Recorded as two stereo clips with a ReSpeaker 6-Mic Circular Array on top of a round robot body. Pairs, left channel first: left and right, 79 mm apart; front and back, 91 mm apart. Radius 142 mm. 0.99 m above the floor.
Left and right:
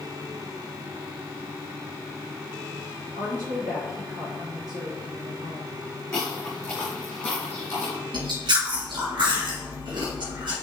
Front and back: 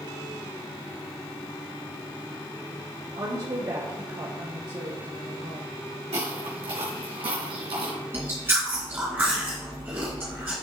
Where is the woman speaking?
145° right, 3 m.